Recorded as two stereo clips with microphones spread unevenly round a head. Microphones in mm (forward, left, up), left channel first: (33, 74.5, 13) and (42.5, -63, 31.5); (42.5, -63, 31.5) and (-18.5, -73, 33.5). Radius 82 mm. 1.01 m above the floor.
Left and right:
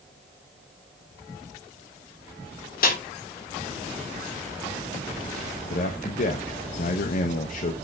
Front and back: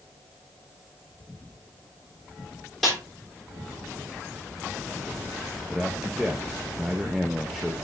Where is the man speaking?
105° left, 0.9 m.